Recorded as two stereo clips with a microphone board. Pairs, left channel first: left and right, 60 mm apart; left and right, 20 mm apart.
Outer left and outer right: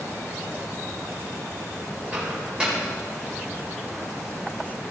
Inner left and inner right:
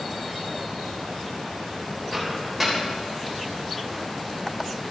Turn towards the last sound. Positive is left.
turn(degrees=-20)  # may be behind; listen again after turning